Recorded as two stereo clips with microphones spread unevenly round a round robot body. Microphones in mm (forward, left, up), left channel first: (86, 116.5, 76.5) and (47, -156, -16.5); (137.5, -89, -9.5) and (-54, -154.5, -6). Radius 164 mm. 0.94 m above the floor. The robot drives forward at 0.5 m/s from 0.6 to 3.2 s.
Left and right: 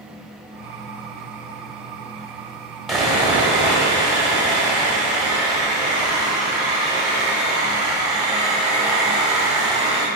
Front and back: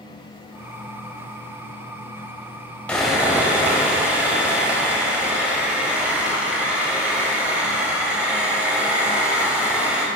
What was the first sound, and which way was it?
Sawing, 95° left.